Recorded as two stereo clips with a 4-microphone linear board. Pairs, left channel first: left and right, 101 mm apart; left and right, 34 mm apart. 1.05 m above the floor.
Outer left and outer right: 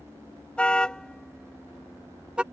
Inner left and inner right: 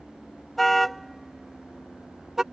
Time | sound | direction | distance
0.6 | a car horn | 10° left (ahead or behind) | ?